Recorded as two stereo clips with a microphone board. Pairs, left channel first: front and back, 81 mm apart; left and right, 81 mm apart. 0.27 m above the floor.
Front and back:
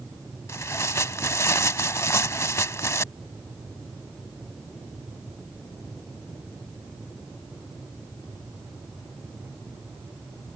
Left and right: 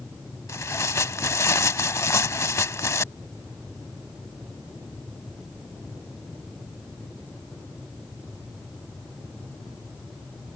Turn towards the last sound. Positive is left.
turn(degrees=45)